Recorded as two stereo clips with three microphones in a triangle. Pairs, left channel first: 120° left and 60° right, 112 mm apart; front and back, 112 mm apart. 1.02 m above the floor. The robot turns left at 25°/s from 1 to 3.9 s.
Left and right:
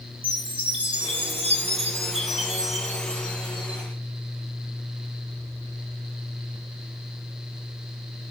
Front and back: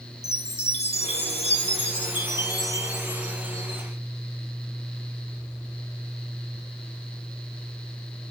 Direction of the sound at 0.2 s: 20° right.